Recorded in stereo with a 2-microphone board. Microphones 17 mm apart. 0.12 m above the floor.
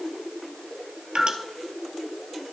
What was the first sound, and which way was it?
Dripping, 60° right (ahead or behind).